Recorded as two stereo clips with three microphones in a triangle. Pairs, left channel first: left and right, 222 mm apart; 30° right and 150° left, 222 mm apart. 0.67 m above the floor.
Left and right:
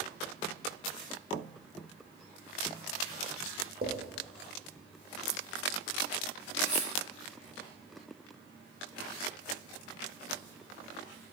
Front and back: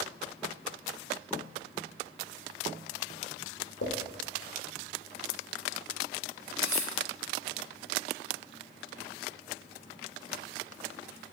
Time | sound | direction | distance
3.8 | a drawer | 40° right | 0.8 m
6.6 | cutlery clinking | 130° left | 1.6 m